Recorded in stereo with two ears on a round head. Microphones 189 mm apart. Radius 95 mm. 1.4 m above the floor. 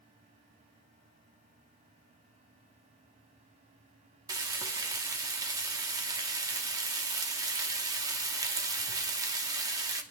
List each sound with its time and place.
4.3 s frying: 20° right (ahead or behind), 0.9 m